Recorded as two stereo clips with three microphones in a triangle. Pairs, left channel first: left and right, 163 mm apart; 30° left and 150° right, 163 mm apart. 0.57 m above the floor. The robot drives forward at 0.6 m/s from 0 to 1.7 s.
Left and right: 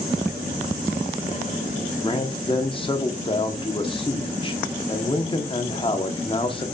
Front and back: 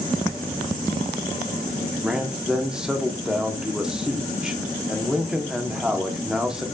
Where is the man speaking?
125° left, 1.1 m.